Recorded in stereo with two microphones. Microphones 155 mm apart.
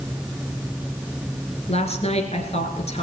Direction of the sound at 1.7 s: 45° left (ahead or behind).